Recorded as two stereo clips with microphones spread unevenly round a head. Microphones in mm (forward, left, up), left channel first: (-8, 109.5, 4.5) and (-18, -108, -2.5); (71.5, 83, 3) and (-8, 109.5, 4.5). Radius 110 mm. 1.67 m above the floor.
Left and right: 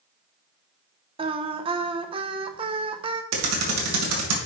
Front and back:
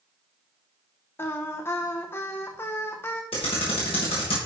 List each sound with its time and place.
1.2 s singing: 50° right, 0.7 m
3.3 s typing on a keyboard: 70° right, 2.5 m